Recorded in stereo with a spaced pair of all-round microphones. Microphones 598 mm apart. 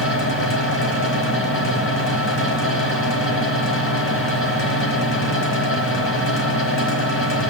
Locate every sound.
0.0 s a fan: 20° left (ahead or behind), 1.7 m